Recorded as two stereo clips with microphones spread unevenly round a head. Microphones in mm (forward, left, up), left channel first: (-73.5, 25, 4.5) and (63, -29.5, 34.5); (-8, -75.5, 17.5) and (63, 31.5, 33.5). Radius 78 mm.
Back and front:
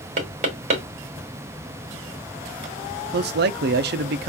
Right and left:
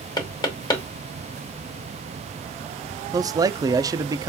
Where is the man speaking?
10° right, 0.5 m.